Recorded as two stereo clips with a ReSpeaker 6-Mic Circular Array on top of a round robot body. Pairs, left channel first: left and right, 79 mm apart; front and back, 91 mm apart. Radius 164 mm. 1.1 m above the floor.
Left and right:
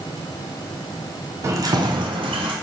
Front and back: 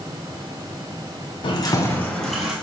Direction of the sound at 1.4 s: 35° right.